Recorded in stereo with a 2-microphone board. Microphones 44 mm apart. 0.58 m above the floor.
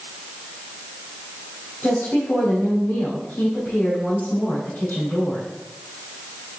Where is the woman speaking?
50° left (ahead or behind), 3.5 m.